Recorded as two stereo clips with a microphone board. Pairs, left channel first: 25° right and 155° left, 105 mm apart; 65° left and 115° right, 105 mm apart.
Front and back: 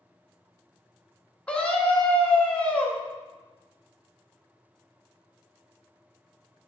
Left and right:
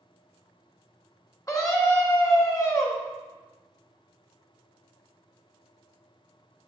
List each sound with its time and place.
1.5 s a scream: 50° left, 1.2 m